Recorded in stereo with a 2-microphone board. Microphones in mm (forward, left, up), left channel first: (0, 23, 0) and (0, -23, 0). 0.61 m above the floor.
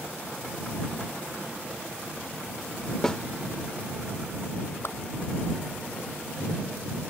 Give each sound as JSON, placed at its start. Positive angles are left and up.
{"t": 3.0, "sound": "a snare drum", "side_deg": 15}
{"t": 4.8, "sound": "a whoosh", "side_deg": 60}